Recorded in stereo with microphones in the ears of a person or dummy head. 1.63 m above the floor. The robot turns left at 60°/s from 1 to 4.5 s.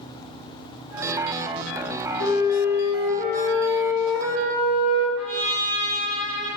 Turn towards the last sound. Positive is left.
turn(degrees=-30)  # may be behind; listen again after turning